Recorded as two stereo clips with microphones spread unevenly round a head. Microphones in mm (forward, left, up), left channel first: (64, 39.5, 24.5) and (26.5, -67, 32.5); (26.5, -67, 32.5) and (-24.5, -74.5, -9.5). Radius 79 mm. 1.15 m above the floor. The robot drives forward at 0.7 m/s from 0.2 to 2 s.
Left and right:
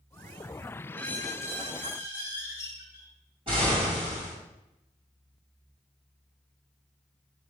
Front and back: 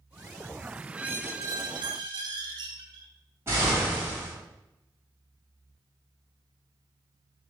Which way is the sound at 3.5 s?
160° right.